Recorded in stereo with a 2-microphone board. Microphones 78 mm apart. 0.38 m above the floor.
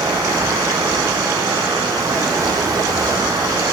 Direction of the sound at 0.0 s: 50° right (ahead or behind).